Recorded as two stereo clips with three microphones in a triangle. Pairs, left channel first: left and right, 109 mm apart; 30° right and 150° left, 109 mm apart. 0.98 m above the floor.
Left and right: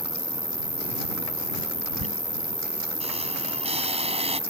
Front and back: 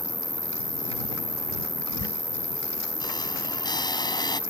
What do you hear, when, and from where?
0.0 s an insect: 90° left
2.0 s a squeak: 75° right